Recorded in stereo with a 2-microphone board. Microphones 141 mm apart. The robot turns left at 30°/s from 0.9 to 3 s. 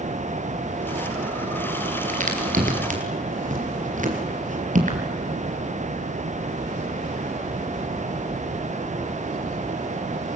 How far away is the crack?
About 3.5 m.